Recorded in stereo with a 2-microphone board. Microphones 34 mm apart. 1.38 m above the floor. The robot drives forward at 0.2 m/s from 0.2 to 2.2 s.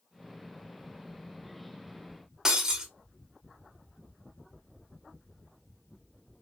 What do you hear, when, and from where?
2.5 s breaking glass: 15° right (ahead or behind), 1.0 m